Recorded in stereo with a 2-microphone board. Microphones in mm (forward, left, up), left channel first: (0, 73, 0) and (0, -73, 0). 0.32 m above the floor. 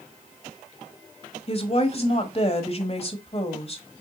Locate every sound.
1.5 s a woman speaking: 40° left (ahead or behind), 1.4 m